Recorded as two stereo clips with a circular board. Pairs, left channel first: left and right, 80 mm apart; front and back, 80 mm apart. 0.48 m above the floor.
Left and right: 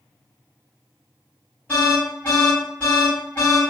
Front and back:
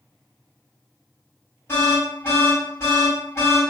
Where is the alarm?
40° left, 1.9 m.